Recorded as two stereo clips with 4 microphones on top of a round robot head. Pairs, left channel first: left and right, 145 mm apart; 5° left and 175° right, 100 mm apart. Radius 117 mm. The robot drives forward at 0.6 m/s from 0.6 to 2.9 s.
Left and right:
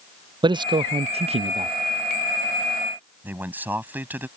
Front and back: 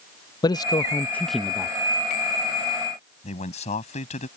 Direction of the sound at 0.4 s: 35° right.